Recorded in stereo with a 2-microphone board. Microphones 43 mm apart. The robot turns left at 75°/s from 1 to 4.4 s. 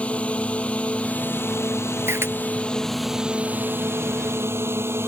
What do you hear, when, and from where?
0.0 s a drone: 150° left; by 5.1 s 105° right
2.1 s a camera shutter: 75° right (ahead or behind); by 2.3 s 70° right (ahead or behind)